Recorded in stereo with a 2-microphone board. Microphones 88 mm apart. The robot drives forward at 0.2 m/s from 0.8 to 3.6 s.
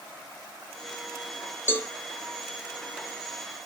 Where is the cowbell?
25° left (ahead or behind), 0.5 m.